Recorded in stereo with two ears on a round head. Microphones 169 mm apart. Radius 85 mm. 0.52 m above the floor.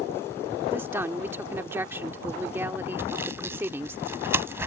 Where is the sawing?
15° right (ahead or behind).